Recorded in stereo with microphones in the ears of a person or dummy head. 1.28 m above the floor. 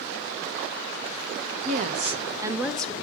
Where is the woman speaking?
45° right (ahead or behind), 0.9 m; by 2.9 s 15° left (ahead or behind), 0.6 m.